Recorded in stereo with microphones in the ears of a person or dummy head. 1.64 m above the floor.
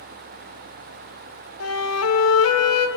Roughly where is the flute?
Left.